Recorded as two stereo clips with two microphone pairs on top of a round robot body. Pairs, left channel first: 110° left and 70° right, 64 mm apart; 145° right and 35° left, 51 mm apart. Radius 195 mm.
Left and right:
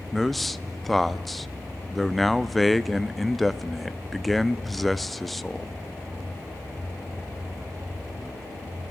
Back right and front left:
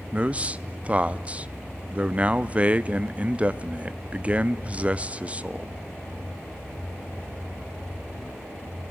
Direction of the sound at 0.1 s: 20° left.